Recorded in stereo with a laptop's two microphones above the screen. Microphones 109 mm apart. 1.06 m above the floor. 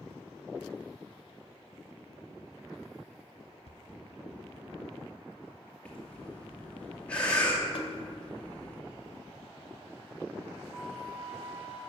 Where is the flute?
15° right (ahead or behind), 3 m.